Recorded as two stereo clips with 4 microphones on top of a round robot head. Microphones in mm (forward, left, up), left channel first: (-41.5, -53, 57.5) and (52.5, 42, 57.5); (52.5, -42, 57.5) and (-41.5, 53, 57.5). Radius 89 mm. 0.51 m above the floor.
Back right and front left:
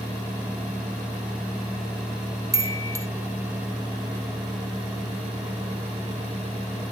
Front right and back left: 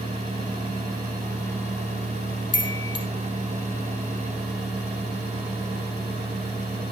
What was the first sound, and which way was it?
A chime, 10° right.